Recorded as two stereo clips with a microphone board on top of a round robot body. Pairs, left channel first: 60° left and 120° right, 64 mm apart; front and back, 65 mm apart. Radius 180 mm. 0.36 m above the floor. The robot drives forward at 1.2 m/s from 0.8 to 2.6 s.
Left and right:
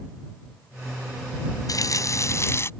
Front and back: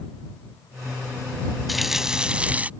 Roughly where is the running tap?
Left.